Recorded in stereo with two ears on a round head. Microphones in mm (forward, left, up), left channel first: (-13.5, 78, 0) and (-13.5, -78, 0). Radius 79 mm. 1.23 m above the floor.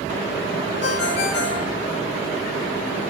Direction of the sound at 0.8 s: 70° left (ahead or behind).